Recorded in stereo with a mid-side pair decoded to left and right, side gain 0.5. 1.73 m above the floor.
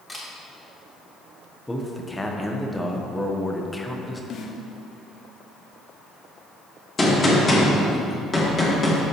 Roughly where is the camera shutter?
Ahead.